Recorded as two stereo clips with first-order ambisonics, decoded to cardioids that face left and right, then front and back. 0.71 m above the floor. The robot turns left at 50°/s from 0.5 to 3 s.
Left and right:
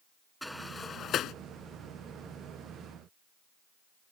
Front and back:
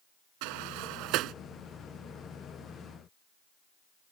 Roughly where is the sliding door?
Behind.